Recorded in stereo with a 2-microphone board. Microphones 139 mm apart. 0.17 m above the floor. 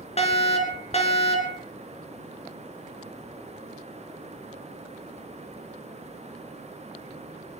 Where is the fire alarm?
50° left (ahead or behind), 3.5 m.